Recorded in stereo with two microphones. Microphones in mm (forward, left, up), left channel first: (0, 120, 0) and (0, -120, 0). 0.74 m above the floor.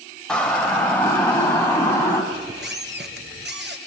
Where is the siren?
5° left (ahead or behind), 2.5 m; by 2.2 s 10° left (ahead or behind), 4.5 m.